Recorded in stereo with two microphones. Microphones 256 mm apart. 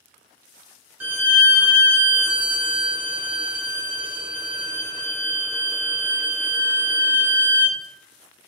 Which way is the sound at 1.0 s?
10° right (ahead or behind).